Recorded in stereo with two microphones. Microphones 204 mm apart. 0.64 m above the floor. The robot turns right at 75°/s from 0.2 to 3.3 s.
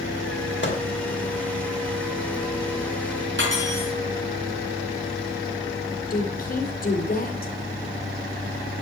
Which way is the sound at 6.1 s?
40° left (ahead or behind).